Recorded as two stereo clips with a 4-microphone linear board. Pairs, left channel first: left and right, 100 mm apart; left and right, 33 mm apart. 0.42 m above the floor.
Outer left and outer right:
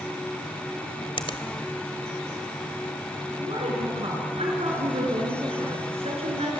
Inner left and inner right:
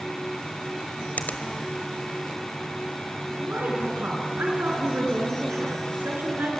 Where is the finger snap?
60° left (ahead or behind), 1.5 m.